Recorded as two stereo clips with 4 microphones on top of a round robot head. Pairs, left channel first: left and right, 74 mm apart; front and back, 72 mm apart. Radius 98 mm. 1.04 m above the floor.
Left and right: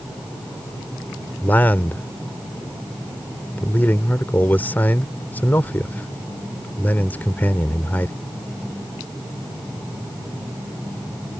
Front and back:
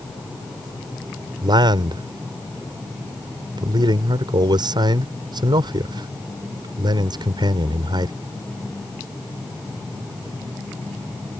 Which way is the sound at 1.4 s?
160° left.